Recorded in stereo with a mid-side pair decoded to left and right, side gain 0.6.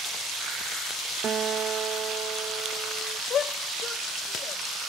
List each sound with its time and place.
1.2 s a guitar: 45° right
3.3 s a shout: 45° left